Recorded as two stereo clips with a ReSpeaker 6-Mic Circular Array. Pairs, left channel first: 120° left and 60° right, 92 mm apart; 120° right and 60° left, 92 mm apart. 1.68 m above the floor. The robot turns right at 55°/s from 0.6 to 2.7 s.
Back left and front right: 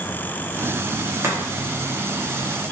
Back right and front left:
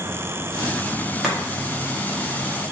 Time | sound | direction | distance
1.2 | chopping | 25° right | 0.8 m